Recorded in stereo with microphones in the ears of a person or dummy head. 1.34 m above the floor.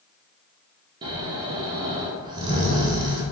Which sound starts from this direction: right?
Snoring, at 1.0 s.